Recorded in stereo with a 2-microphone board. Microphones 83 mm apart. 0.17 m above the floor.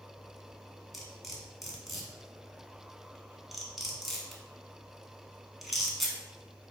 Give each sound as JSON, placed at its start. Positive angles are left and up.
{"t": 0.9, "sound": "cutlery clinking", "side_deg": 0, "distance_m": 0.8}